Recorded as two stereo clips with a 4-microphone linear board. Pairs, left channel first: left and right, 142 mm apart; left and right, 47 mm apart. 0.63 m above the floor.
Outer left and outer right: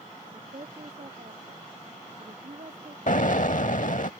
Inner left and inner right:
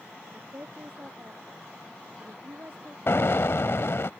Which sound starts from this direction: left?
An explosion, at 3.1 s.